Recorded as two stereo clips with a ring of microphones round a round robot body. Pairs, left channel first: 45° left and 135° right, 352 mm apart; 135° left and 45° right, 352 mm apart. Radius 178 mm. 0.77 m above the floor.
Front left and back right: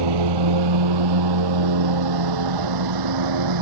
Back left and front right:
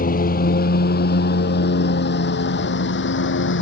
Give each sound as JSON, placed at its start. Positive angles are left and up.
{"t": 0.0, "sound": "a lawn mower", "azimuth_deg": -155}